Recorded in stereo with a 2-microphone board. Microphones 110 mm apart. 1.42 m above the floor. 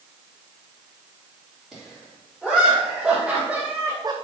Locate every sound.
1.7 s laughter: centre (ahead or behind), 3 m; by 4.2 s 40° right (ahead or behind), 0.5 m